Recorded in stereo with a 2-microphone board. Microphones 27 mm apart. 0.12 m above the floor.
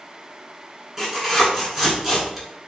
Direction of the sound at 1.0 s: 15° right (ahead or behind).